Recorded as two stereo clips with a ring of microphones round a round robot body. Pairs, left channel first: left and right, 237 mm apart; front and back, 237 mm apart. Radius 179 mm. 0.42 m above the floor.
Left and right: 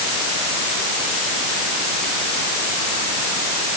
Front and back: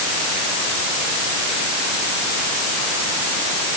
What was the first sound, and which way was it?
Only background noise.